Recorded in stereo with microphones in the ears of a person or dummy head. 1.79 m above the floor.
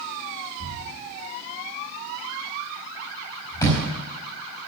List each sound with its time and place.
0.6 s a thud: 20° left (ahead or behind), 4 m